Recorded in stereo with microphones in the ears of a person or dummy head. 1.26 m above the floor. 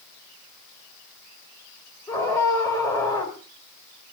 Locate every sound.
2.1 s a scream: 15° left (ahead or behind), 4.5 m